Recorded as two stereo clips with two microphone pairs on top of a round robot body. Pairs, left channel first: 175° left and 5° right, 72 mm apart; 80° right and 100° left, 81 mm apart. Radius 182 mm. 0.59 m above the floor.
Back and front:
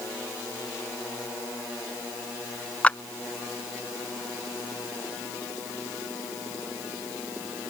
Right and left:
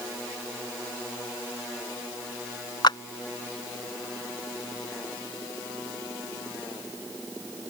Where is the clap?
110° right.